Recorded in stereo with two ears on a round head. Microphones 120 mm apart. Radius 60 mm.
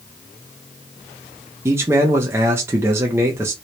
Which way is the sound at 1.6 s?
20° right (ahead or behind).